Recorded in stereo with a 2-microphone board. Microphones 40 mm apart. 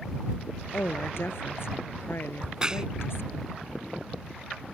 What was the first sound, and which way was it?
A woman speaking, 65° left (ahead or behind).